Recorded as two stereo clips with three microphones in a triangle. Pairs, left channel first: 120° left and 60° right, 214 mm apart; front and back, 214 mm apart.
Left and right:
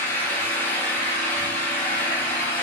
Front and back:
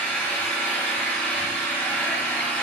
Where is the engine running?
65° left, 0.8 m.